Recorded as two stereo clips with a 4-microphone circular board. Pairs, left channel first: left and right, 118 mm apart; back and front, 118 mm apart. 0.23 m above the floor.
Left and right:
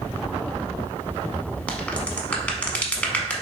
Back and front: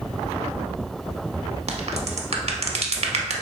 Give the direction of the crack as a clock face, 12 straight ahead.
12 o'clock.